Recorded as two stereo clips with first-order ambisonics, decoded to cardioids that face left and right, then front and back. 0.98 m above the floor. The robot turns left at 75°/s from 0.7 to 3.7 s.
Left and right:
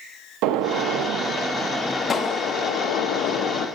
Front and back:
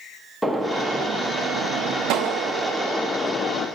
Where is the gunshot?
90° right, 0.7 m; by 3.7 s 50° left, 0.7 m.